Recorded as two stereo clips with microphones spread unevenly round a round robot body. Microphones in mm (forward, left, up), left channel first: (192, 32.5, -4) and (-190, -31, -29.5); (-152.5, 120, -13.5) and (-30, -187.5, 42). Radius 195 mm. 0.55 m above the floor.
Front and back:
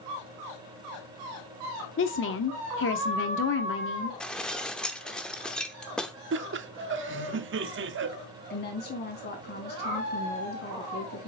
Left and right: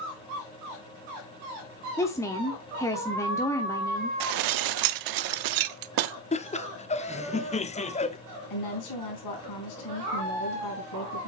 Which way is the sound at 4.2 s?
80° right.